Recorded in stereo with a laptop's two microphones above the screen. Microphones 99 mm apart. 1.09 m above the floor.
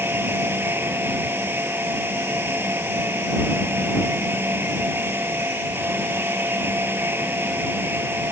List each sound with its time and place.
0.0 s a fan: 20° right (ahead or behind)